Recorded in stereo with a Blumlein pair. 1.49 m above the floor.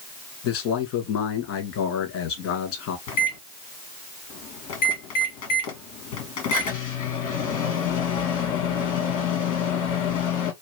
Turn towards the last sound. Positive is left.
turn(degrees=50)